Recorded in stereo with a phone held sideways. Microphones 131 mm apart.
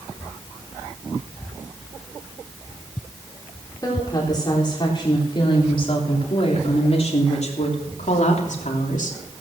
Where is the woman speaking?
25° left (ahead or behind), 4 m; by 9.2 s 75° left (ahead or behind), 3 m.